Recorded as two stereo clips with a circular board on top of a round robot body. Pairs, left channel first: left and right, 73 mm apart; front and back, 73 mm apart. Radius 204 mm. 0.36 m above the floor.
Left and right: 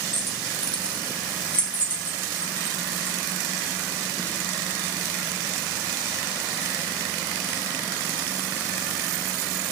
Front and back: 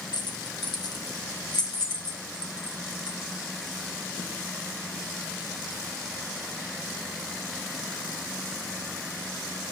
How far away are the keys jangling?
About 1.4 m.